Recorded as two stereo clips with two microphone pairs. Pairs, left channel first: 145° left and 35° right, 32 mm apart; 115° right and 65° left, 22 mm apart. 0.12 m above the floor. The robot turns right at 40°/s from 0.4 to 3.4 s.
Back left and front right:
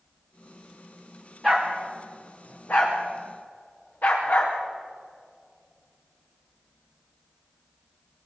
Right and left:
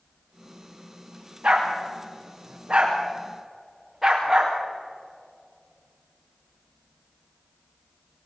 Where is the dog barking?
60° left, 5 m; by 4.6 s 140° left, 5 m.